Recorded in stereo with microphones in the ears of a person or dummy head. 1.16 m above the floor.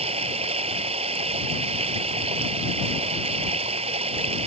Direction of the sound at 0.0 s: 30° right (ahead or behind).